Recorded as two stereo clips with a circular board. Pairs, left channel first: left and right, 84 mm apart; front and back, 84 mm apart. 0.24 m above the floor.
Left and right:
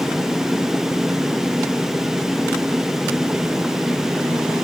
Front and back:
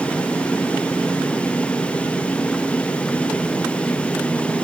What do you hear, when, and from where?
Only background noise.